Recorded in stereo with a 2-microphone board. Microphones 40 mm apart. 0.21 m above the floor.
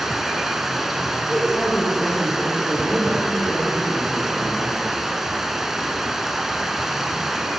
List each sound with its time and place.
0.0 s running water: 10° right (ahead or behind), 0.7 m
1.3 s a man speaking: centre (ahead or behind), 5 m